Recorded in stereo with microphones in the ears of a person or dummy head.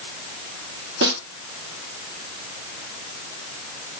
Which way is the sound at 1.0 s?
65° right (ahead or behind).